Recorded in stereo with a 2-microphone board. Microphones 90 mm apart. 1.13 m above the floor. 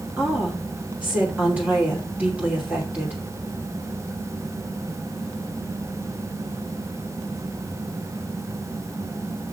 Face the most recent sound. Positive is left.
turn(degrees=-15)  # may be behind; listen again after turning